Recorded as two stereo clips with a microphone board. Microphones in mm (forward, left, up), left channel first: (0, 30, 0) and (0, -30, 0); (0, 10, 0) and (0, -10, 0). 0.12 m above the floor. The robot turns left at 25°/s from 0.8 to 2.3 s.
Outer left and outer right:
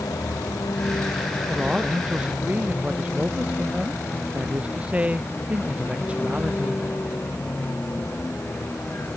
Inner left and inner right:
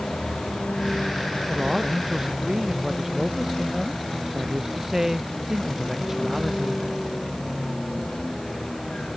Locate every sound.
0.0 s a vehicle: 90° left; by 9.2 s 40° left (ahead or behind)
1.5 s a man speaking: centre (ahead or behind); by 6.9 s 20° right (ahead or behind)